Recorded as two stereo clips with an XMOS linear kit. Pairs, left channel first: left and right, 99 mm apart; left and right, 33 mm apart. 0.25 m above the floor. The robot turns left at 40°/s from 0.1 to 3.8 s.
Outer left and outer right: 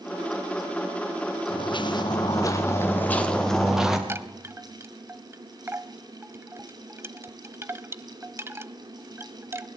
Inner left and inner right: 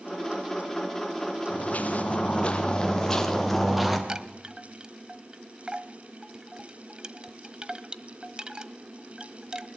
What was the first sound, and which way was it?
Footsteps, 60° left (ahead or behind).